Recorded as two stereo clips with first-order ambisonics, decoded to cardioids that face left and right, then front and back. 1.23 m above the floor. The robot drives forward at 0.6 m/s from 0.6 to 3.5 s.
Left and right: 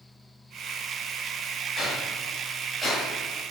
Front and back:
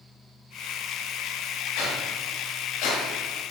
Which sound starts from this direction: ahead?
A whoosh, at 1.8 s.